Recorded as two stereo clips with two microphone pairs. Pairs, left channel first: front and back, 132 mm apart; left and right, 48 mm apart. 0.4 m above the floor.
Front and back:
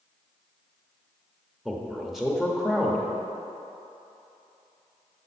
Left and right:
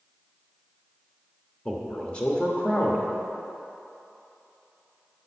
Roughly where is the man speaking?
Left.